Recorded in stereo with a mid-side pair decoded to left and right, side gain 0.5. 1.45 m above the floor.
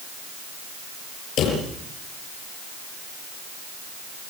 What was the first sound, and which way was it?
A drawer, 70° left.